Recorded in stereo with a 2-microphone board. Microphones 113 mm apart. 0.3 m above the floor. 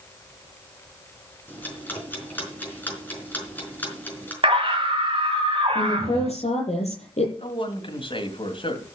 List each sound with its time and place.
1.5 s ticking: 15° left (ahead or behind), 4 m
4.4 s a scream: 50° right (ahead or behind), 1.5 m
5.8 s a woman speaking: 70° left (ahead or behind), 8.5 m
7.4 s a man speaking: 50° left (ahead or behind), 2.5 m